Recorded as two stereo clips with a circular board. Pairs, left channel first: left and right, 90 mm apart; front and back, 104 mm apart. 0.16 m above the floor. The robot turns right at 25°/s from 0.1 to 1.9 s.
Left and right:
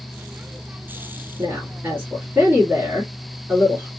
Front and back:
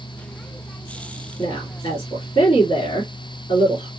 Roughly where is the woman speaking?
Ahead right.